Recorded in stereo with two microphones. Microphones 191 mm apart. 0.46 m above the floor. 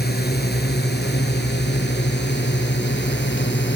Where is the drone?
55° left (ahead or behind); by 3.8 s 70° left (ahead or behind).